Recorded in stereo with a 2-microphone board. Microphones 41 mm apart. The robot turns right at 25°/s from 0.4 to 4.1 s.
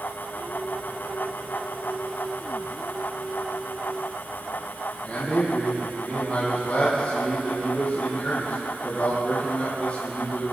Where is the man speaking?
35° left (ahead or behind), 3.5 m.